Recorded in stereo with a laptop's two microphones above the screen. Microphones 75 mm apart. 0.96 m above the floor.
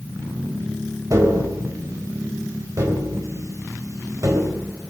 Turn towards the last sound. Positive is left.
turn(degrees=-45)  # may be behind; listen again after turning